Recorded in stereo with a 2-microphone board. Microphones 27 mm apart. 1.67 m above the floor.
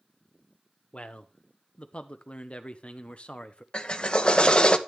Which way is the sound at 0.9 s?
45° left (ahead or behind).